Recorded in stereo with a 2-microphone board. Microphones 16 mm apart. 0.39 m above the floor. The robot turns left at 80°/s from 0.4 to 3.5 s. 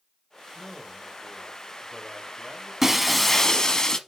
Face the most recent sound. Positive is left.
turn(degrees=150)